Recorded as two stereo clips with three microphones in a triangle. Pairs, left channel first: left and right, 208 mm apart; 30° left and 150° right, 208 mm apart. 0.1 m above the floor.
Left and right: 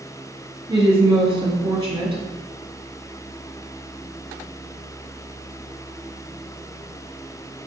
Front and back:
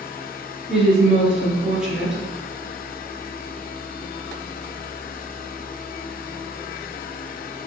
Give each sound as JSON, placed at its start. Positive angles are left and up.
{"t": 0.7, "sound": "a woman speaking", "azimuth_deg": -65, "distance_m": 1.2}